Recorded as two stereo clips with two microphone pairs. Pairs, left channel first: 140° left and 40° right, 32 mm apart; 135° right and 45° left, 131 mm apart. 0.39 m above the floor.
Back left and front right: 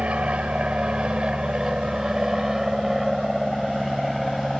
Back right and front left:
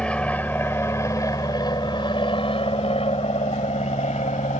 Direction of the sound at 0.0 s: 55° right.